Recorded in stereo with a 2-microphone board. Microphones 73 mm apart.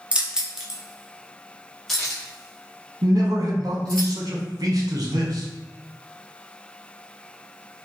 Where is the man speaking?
55° right (ahead or behind), 1.0 m.